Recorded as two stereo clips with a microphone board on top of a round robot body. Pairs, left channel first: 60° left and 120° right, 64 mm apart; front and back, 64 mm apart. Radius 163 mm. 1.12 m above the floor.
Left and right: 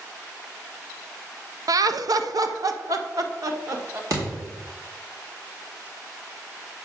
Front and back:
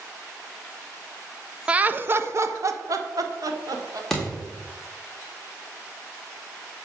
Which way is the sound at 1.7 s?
105° right.